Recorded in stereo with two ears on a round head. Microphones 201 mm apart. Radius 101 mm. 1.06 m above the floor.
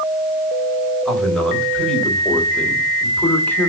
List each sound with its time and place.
1.1 s a man speaking: centre (ahead or behind), 4 m; by 3.7 s 10° left (ahead or behind), 2.5 m